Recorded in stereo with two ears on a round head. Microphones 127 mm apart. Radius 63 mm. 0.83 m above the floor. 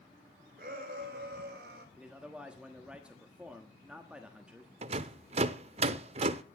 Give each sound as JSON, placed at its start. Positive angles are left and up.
{"t": 0.6, "sound": "a shout", "side_deg": -65, "distance_m": 4.0}
{"t": 2.0, "sound": "a man speaking", "side_deg": -10, "distance_m": 1.3}
{"t": 4.8, "sound": "a rattle", "side_deg": -45, "distance_m": 0.7}